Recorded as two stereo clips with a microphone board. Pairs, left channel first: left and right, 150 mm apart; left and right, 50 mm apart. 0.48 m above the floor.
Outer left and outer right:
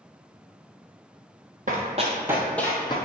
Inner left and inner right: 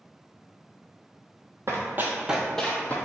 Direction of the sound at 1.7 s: 55° right (ahead or behind).